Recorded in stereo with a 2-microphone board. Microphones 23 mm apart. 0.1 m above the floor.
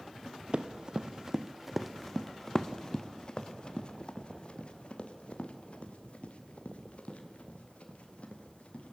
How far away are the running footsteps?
About 1.4 m.